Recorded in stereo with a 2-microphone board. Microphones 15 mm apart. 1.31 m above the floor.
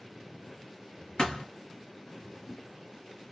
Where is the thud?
70° left (ahead or behind), 3 m.